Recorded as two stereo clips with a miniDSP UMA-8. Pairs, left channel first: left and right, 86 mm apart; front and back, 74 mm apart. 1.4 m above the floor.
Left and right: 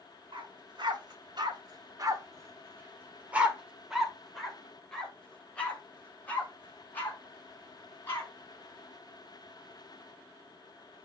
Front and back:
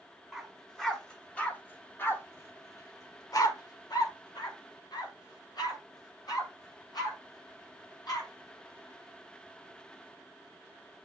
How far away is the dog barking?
About 2 m.